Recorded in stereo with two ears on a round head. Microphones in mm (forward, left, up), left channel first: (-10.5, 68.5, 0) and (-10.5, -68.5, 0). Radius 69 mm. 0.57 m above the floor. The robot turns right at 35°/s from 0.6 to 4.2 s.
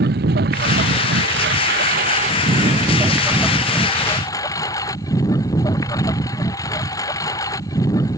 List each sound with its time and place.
0.0 s a lawn mower: 105° right; by 8.2 s 20° left